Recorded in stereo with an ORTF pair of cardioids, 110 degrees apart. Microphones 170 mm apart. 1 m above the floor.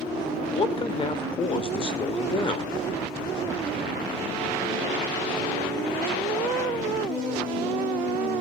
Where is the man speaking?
30° left, 3 m.